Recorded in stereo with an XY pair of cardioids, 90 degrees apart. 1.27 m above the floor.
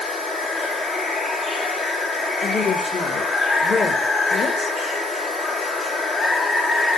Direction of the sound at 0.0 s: 40° left.